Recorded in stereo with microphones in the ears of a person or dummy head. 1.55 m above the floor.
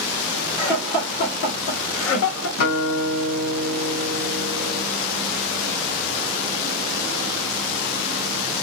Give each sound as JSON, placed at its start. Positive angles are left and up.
{"t": 0.6, "sound": "laughter", "side_deg": 5, "distance_m": 1.1}
{"t": 2.6, "sound": "a guitar", "side_deg": 60, "distance_m": 1.1}